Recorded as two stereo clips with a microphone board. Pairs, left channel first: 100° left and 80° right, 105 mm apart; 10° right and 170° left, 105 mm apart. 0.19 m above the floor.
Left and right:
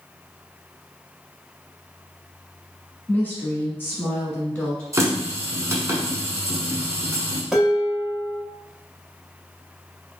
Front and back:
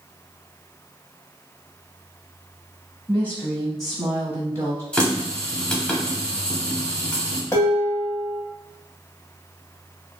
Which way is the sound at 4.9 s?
85° right.